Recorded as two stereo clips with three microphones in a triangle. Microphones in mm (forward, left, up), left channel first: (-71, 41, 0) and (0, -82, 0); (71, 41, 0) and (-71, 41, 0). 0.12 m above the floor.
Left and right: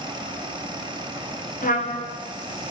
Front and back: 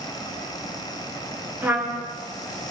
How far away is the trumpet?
About 4.5 m.